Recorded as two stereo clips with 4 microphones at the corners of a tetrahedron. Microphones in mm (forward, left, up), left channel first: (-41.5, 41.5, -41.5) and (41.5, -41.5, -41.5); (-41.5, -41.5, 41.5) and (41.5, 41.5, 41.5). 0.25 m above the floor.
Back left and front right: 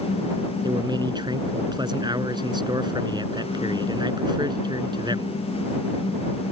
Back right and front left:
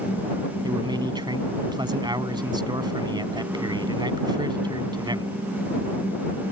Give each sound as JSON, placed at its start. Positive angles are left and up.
{"t": 0.6, "sound": "a man speaking", "azimuth_deg": 0}